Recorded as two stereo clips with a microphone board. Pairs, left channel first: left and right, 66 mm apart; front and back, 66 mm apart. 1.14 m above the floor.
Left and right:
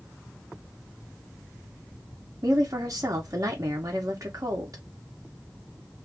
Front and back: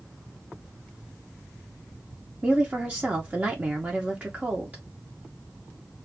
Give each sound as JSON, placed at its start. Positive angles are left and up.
{"t": 2.4, "sound": "a woman speaking", "azimuth_deg": -115, "distance_m": 0.9}